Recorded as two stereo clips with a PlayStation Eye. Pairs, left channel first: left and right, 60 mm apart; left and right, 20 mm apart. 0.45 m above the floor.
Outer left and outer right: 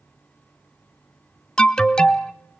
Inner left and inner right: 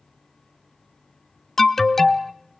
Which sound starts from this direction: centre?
An alarm, at 1.6 s.